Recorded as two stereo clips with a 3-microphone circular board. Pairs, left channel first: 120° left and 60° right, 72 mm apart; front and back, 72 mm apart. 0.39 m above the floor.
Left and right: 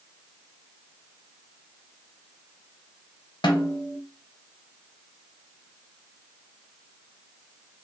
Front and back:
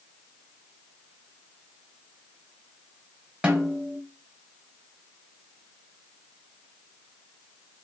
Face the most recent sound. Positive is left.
turn(degrees=100)